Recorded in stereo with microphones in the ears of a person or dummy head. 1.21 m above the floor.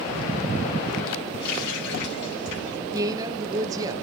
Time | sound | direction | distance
1.4 | a running tap | 55° left (ahead or behind) | 7.5 m
2.9 | a woman speaking | 20° right (ahead or behind) | 0.8 m